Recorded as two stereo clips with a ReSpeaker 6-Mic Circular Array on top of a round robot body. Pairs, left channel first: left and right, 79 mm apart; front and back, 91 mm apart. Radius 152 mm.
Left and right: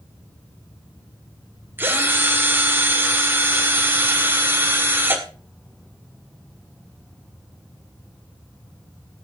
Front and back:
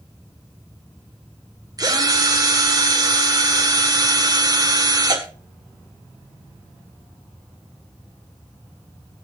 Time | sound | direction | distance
1.8 | a drill | 150° right | 2 m